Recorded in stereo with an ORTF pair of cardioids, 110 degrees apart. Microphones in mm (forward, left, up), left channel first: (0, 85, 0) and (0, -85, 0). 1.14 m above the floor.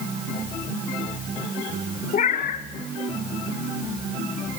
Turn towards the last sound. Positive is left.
turn(degrees=50)